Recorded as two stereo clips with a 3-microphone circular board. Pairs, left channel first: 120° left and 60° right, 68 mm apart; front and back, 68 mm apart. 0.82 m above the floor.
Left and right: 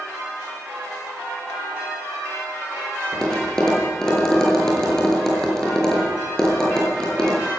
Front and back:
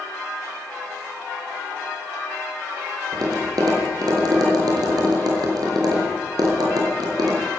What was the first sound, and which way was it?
Tapping, 160° right.